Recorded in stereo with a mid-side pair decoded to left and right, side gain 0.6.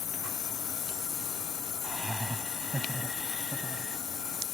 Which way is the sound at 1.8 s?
5° right.